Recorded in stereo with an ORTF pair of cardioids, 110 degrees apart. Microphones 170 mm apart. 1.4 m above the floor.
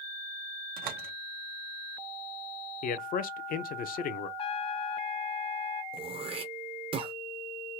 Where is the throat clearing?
35° right, 1.0 m.